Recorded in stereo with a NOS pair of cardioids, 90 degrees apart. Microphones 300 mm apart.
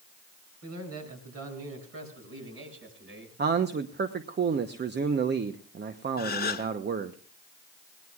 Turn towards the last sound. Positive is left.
turn(degrees=30)